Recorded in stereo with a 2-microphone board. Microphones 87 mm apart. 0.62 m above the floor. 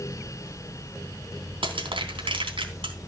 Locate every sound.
1.6 s crushing: 80° right, 3 m